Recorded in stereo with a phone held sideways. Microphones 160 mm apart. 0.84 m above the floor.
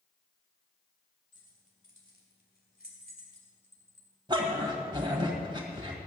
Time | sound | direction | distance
1.3 | keys jangling | 55° left (ahead or behind) | 3 m
4.3 | a dog barking | 30° right (ahead or behind) | 1.7 m